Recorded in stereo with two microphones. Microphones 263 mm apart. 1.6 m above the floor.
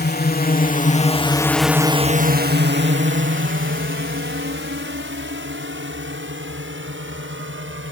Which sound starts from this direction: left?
A drone, at 0.0 s.